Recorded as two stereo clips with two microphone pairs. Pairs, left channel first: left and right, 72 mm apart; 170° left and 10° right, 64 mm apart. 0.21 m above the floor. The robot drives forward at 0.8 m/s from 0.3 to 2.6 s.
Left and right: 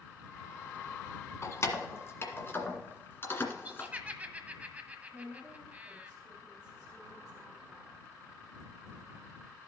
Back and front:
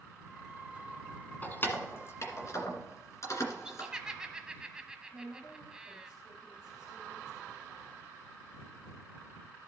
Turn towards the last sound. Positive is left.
turn(degrees=175)